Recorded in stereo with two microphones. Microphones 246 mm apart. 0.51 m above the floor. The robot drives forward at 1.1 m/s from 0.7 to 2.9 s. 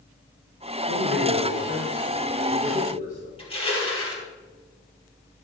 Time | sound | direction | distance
0.9 | a man speaking | 55° left (ahead or behind) | 3.5 m
3.4 | crushing | 20° left (ahead or behind) | 3.5 m